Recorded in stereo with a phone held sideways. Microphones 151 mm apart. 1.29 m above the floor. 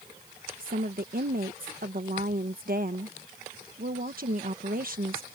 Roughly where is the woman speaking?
Right.